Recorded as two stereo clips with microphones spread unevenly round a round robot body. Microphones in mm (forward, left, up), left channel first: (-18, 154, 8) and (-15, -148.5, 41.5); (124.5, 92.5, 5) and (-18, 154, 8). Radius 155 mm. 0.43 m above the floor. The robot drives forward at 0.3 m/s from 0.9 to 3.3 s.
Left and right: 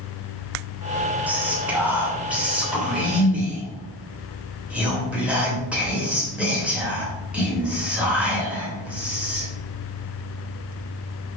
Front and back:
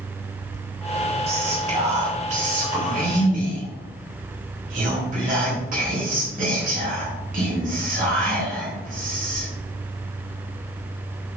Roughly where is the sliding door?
No sliding door in this recording.